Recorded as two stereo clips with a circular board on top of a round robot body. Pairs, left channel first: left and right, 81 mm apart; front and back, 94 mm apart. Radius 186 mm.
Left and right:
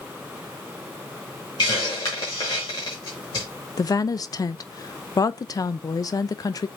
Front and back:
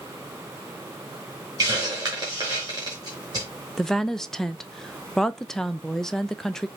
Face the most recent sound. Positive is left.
turn(degrees=85)